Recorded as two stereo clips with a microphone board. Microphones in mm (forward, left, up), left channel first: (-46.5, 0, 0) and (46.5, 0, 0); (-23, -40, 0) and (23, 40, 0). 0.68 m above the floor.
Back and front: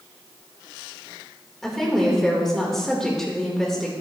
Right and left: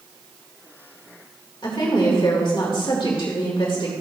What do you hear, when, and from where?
1.6 s a woman speaking: 95° right, 2 m